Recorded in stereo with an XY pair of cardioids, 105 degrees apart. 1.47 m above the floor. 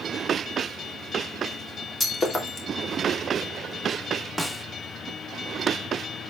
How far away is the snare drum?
About 1.0 m.